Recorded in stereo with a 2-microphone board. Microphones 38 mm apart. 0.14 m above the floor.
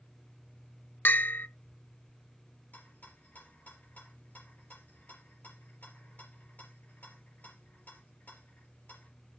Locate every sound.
1.1 s a bell: 55° left (ahead or behind), 0.7 m
2.7 s a rattle: 45° left (ahead or behind), 4 m